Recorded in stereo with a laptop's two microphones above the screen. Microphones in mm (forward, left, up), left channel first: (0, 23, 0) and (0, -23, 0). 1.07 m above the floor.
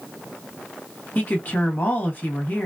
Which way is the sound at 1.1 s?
40° left (ahead or behind).